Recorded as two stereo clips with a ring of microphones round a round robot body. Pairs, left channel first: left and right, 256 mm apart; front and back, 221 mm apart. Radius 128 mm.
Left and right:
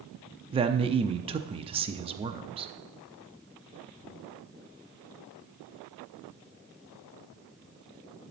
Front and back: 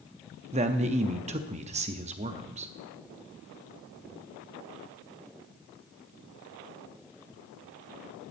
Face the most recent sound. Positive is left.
turn(degrees=-145)